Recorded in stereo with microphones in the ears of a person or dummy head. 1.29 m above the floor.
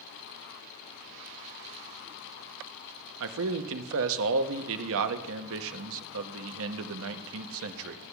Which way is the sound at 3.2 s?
75° right (ahead or behind).